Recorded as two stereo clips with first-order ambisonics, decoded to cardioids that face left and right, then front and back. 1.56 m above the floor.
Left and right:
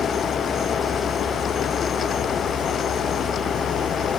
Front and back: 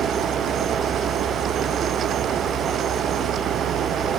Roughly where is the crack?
I don't hear a crack.